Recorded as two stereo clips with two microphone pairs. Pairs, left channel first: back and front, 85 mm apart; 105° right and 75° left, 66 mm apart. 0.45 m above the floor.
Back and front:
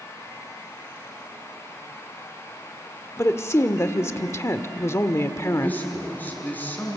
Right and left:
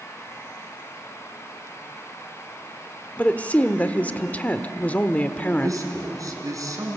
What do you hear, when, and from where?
3.2 s a woman speaking: 155° right, 1.1 m
5.6 s a man speaking: 105° left, 5 m